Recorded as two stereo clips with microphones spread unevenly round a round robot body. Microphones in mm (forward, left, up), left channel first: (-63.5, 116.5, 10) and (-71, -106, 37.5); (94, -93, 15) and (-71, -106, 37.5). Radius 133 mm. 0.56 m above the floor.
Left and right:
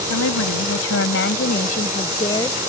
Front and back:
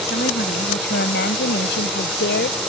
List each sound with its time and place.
0.1 s a woman speaking: 60° left; by 2.6 s 5° left